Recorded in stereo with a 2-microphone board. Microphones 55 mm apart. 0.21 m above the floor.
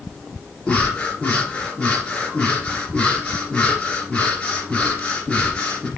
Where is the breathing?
20° left (ahead or behind), 2 m.